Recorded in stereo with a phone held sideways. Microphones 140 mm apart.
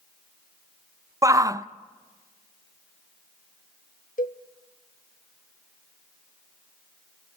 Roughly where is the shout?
Right.